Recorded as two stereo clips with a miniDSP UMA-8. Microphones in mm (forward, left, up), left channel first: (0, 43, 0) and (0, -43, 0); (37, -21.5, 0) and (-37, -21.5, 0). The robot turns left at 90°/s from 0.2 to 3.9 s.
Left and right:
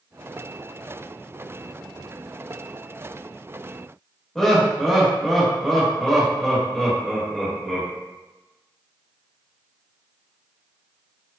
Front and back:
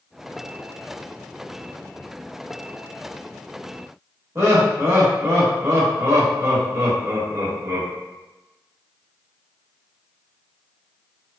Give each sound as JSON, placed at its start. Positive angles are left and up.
{"t": 4.3, "sound": "laughter", "azimuth_deg": 175, "distance_m": 1.1}